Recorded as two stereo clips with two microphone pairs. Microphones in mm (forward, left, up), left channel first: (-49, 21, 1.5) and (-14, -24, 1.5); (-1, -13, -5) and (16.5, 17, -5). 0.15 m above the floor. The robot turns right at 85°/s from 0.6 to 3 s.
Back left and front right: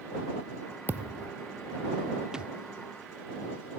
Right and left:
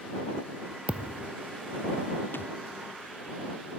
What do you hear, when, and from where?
0.9 s a thud: 5° left; by 1.3 s 45° left
2.3 s a thud: 135° right; by 2.5 s 115° right